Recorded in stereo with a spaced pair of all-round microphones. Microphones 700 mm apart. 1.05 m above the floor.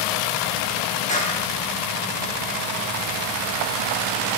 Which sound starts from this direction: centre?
A clap, at 1.1 s.